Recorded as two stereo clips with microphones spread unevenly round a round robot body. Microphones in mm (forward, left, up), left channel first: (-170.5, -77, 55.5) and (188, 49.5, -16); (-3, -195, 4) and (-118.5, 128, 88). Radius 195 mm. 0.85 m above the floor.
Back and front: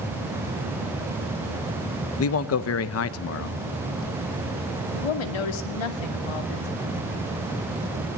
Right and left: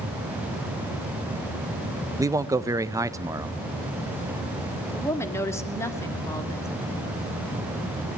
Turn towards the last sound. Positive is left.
turn(degrees=-150)